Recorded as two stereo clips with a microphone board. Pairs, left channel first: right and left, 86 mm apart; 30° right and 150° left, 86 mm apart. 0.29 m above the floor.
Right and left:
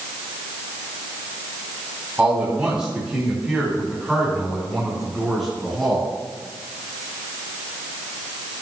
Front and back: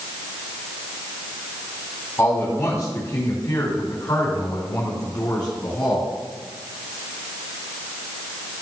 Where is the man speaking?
20° left, 2.5 m; by 6.1 s 5° right, 4.5 m.